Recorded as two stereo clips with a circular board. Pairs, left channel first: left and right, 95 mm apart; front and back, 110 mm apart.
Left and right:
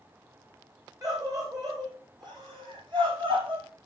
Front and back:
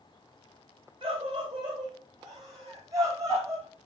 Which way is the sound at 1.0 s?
140° right.